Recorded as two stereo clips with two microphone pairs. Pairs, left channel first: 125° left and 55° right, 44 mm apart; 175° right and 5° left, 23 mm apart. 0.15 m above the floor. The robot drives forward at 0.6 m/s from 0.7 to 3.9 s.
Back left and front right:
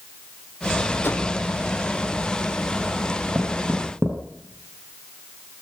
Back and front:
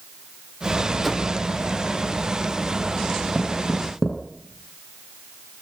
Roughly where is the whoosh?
Left.